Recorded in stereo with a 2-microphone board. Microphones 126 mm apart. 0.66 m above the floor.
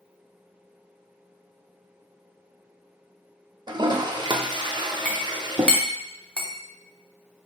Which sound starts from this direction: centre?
A clink, at 5.0 s.